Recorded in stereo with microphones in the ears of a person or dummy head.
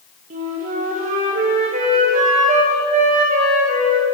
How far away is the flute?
About 0.7 m.